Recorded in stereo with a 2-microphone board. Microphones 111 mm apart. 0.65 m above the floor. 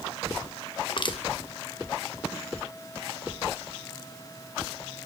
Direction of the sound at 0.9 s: 50° left (ahead or behind).